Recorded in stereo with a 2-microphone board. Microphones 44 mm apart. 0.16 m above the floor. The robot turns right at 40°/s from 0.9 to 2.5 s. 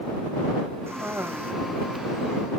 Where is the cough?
80° right; by 1.5 s 70° right (ahead or behind).